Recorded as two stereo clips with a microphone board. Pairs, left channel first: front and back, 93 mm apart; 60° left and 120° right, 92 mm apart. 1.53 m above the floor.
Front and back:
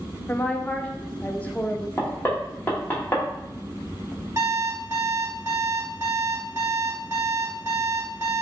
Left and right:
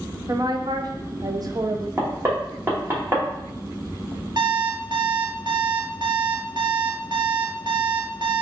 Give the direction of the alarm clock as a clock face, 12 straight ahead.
4 o'clock.